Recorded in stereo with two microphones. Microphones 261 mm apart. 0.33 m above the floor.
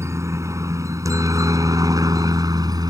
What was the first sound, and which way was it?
A helicopter, 10° right (ahead or behind).